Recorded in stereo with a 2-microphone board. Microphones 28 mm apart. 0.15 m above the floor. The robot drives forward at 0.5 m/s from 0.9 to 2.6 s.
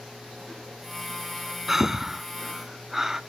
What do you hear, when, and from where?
1.7 s breathing: 10° right (ahead or behind), 0.5 m; by 3.2 s 15° right (ahead or behind), 0.5 m